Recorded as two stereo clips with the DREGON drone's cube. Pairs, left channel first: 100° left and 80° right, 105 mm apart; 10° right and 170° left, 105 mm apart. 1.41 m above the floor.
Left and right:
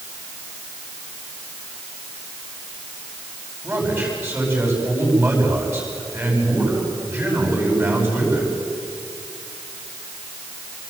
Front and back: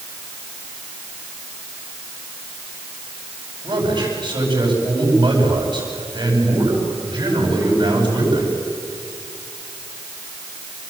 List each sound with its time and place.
3.6 s a man speaking: 145° right, 10 m